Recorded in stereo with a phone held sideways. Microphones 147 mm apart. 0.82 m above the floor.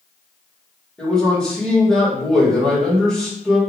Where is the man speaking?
5° left (ahead or behind), 1.9 m.